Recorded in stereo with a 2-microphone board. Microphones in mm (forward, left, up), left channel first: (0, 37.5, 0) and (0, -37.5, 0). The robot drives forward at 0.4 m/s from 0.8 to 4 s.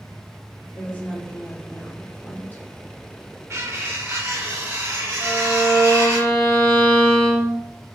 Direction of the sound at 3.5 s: 40° right (ahead or behind).